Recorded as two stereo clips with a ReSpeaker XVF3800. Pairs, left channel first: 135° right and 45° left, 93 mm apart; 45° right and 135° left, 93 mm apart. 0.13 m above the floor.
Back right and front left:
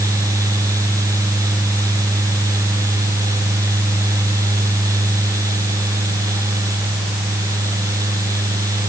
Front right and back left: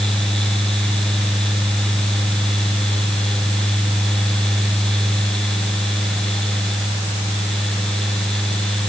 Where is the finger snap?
No finger snap in this recording.